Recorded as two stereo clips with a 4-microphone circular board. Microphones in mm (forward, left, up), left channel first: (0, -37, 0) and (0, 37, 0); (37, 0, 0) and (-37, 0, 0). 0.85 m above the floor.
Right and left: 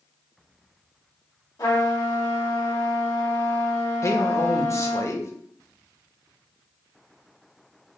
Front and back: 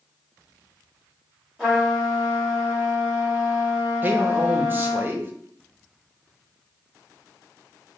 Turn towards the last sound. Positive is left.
turn(degrees=-125)